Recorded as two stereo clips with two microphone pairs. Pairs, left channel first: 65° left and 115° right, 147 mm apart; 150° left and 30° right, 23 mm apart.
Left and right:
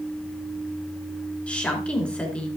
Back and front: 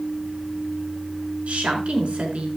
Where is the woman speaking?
15° right, 4.5 m.